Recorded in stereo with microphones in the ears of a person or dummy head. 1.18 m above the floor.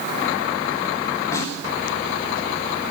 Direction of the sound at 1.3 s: 15° left (ahead or behind).